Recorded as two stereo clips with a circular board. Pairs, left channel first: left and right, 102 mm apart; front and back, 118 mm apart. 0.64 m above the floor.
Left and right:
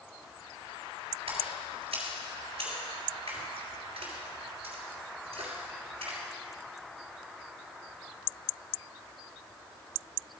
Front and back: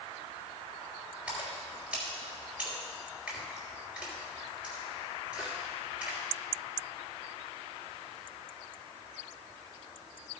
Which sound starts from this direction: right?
A splash, at 1.3 s.